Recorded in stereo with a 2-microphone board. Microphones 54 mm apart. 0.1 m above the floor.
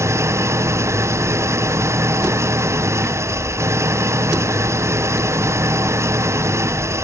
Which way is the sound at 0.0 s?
55° right (ahead or behind).